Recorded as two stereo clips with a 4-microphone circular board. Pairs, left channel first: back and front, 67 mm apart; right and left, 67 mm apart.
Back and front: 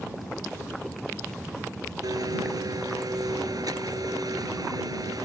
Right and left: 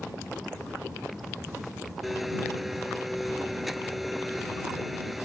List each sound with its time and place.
2.0 s a blender: straight ahead